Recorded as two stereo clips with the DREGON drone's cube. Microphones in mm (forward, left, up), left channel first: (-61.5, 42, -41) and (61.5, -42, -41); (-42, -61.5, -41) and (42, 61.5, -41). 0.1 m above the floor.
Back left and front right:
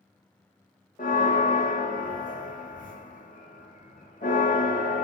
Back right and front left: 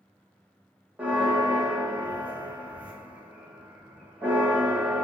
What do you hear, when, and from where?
1.0 s a bell: 135° left, 0.7 m